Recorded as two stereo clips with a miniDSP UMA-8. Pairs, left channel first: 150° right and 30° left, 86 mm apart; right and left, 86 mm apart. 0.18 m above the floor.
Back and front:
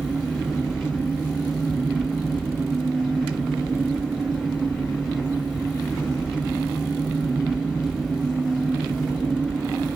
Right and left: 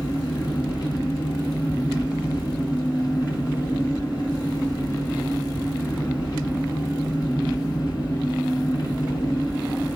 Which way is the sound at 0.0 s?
60° right.